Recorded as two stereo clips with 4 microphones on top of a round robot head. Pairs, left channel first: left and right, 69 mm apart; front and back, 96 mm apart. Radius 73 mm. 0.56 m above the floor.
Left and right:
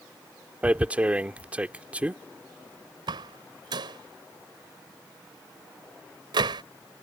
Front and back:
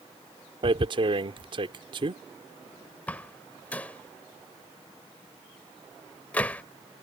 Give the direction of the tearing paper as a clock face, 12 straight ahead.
5 o'clock.